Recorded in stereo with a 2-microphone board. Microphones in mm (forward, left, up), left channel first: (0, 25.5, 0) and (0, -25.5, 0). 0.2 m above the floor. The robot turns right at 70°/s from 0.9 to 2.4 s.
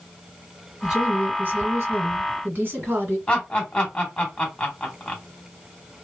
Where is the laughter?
20° left (ahead or behind), 1.4 m.